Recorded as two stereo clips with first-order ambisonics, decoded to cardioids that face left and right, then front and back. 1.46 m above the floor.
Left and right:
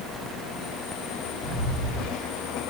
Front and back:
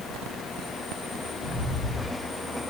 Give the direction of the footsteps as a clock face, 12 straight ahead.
10 o'clock.